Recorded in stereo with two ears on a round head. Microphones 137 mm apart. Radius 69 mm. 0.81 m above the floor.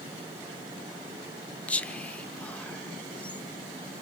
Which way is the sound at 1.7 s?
10° left (ahead or behind).